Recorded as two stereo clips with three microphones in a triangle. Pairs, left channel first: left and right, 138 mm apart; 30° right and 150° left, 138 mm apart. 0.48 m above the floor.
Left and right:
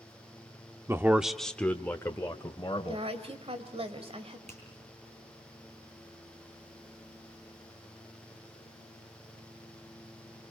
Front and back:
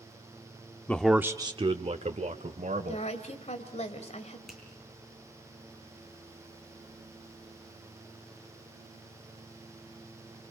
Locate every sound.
0.9 s a man speaking: 80° right, 0.7 m; by 3.1 s 150° left, 1.9 m
2.9 s a woman speaking: 55° right, 2.5 m
4.5 s a finger snap: 120° right, 7 m